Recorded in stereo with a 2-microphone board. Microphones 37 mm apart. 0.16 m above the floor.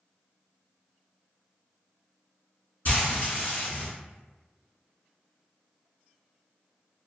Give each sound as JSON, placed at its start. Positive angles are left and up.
{"t": 2.9, "sound": "frying", "side_deg": 50, "distance_m": 1.1}